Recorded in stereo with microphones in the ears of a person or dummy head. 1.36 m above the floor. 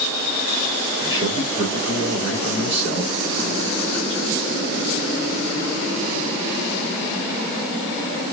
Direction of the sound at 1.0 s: 35° right (ahead or behind).